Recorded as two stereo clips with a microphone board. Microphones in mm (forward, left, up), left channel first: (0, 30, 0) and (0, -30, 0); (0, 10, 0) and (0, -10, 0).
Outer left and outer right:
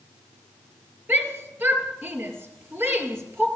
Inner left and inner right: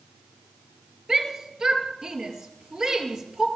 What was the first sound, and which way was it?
A shout, 35° right (ahead or behind).